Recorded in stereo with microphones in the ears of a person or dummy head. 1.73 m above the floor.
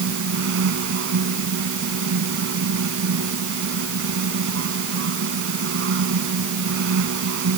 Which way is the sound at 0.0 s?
70° right (ahead or behind).